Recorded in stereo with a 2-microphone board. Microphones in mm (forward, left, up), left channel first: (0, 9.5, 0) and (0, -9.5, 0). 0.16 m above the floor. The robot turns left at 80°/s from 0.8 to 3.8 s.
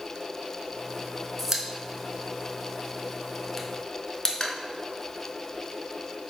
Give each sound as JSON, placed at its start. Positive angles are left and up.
{"t": 1.4, "sound": "a pop", "side_deg": -15, "distance_m": 0.6}